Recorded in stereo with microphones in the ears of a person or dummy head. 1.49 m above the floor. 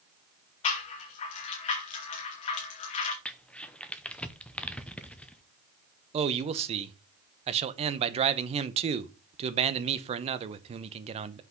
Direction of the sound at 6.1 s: 30° right (ahead or behind).